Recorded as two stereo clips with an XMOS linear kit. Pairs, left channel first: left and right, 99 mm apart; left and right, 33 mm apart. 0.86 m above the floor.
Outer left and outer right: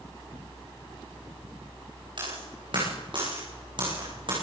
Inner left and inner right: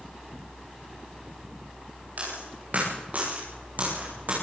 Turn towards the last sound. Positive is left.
turn(degrees=-55)  # may be behind; listen again after turning